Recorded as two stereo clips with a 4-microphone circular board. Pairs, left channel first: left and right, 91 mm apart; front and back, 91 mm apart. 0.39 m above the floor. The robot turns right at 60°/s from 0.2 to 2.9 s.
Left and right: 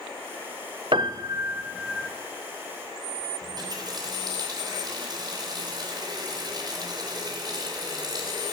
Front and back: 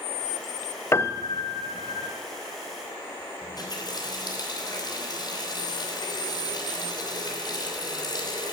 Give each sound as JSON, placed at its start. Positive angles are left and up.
{"t": 0.9, "sound": "a piano", "azimuth_deg": -60, "distance_m": 0.8}
{"t": 3.4, "sound": "a running tap", "azimuth_deg": -45, "distance_m": 3.0}